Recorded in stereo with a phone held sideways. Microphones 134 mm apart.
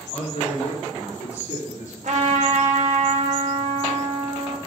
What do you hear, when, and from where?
0.1 s a man speaking: 50° left (ahead or behind), 4.5 m; by 1.9 s 65° left (ahead or behind), 3 m
2.0 s a trumpet: 65° right (ahead or behind), 1.7 m